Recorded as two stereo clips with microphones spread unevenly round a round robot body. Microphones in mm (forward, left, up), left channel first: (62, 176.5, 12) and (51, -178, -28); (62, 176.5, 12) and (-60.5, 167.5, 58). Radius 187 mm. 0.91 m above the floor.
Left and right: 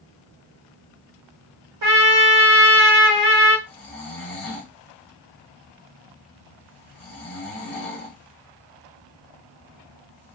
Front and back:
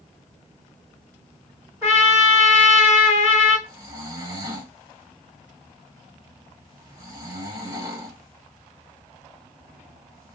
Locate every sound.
1.8 s a trumpet: 90° right, 1.2 m
3.7 s snoring: 165° left, 0.6 m